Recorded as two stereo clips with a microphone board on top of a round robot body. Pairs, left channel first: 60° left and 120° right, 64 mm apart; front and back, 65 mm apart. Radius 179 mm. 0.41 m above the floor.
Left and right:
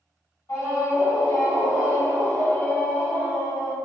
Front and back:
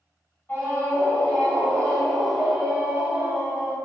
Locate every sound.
0.5 s a scream: 50° left, 1.9 m; by 3.8 s 140° left, 1.4 m